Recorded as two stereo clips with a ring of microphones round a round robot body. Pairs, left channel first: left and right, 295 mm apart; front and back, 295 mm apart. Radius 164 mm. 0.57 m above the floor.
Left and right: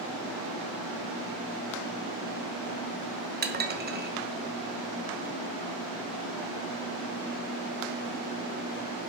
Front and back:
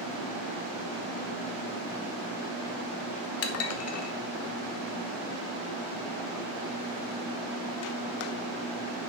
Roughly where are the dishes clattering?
Ahead right.